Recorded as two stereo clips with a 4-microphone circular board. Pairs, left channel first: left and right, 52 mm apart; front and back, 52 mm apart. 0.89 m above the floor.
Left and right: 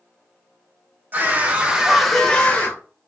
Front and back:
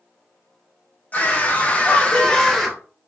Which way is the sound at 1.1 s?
45° right.